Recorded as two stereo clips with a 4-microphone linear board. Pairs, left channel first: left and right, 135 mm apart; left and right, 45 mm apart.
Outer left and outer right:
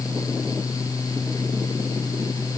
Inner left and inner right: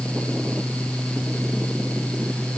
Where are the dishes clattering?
I don't hear dishes clattering.